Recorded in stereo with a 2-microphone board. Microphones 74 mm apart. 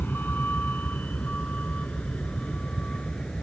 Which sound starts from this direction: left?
A vehicle, at 0.0 s.